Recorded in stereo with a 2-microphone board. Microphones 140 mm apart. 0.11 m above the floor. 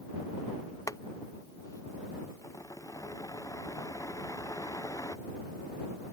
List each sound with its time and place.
0.9 s boiling: 20° left (ahead or behind)